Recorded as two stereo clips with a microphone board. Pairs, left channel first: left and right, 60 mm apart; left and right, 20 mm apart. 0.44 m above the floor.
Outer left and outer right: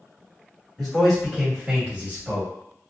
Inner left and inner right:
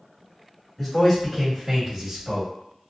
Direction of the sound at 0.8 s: 5° left (ahead or behind).